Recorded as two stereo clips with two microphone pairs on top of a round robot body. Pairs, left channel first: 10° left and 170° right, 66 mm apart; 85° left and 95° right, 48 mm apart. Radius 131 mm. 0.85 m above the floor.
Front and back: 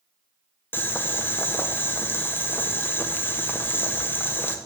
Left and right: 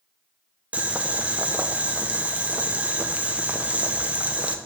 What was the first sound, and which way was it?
Boiling, 40° right.